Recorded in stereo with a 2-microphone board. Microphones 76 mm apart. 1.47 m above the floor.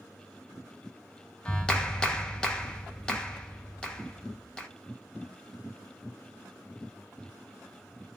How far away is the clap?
About 0.7 m.